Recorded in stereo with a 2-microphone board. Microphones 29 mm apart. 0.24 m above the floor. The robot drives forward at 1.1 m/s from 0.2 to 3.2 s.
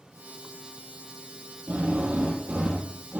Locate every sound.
1.7 s a drill: 75° right (ahead or behind), 7 m; by 3.2 s 80° right, 7 m